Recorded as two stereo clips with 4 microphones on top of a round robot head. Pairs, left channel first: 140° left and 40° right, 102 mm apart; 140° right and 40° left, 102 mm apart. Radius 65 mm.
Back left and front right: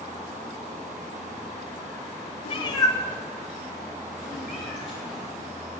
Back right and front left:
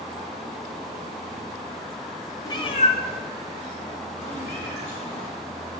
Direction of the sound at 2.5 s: 165° left.